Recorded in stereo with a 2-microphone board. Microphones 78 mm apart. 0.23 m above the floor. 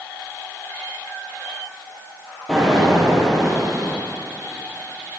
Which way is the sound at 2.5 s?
5° left (ahead or behind).